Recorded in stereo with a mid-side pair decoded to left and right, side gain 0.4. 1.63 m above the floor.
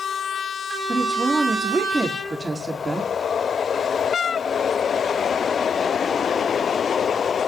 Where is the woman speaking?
20° right, 4.5 m.